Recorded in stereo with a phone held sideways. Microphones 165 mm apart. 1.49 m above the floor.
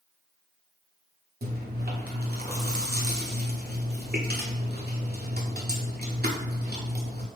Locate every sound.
1.4 s chewing: 70° right (ahead or behind), 0.9 m